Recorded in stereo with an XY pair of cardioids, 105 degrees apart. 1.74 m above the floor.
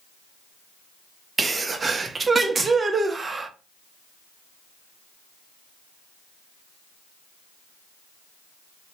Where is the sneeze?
30° right, 0.6 m.